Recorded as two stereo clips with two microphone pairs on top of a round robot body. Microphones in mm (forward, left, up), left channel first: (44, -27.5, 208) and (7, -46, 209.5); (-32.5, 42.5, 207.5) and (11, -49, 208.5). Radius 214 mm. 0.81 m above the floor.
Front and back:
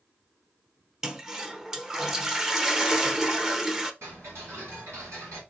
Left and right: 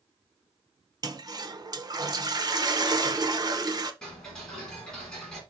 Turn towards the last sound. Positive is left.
turn(degrees=-160)